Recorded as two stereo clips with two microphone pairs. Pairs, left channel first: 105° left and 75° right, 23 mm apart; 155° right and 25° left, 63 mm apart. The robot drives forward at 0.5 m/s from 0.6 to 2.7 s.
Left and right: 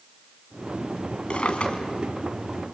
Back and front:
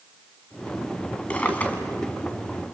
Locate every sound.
1.3 s a drawer: 140° left, 2 m; by 1.8 s 145° left, 2 m